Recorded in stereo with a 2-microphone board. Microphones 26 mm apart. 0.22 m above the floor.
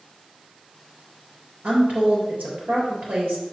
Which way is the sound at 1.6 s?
65° right (ahead or behind).